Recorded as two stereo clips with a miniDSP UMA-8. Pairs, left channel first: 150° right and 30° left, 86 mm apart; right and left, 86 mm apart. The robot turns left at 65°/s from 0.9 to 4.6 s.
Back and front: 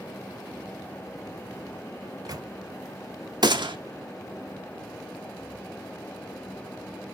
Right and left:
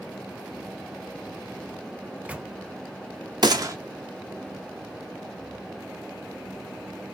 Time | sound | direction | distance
2.0 | a microwave | 35° left | 0.5 m
3.4 | a gunshot | 60° left | 1.0 m